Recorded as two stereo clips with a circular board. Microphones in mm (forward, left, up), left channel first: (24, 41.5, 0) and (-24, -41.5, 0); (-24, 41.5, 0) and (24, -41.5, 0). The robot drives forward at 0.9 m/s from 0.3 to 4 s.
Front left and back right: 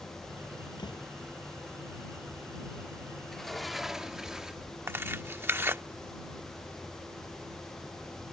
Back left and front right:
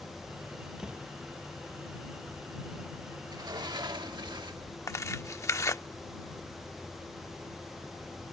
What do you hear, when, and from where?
0.8 s a door slam: 20° left; by 1.1 s 25° left
3.2 s a sliding door: 25° right; by 4.7 s 35° right
4.9 s tearing paper: 175° left